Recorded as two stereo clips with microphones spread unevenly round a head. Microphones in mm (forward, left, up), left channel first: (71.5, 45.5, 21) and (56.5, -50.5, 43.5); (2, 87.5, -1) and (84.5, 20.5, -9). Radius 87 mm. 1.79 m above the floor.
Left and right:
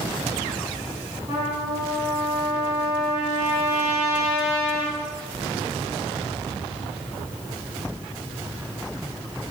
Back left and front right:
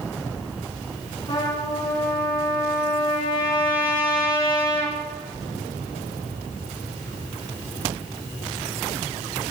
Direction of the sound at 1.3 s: 160° right.